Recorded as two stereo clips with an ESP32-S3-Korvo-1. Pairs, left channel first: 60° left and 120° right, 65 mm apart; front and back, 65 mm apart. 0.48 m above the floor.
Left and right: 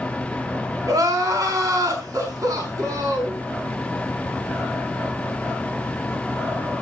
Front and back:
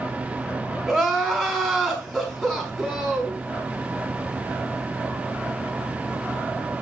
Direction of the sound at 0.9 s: 85° right.